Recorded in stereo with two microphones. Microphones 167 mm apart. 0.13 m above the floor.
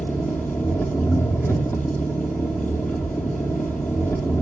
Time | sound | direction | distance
0.0 | an engine running | 15° left (ahead or behind) | 2.5 m